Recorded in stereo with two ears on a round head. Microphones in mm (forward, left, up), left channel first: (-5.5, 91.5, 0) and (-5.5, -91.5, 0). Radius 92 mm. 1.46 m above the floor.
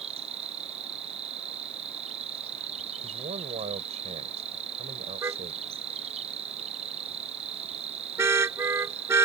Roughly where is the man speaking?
Right.